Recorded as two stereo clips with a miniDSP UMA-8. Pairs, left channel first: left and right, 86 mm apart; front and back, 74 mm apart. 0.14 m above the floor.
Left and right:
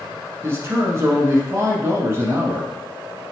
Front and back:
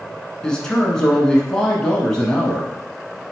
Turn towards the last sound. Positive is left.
turn(degrees=-70)